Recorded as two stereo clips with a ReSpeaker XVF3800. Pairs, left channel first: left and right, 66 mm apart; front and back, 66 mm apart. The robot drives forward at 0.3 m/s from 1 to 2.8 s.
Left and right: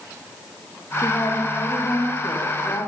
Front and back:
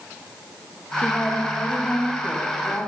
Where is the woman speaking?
65° left, 6 m; by 2.9 s 70° left, 6 m.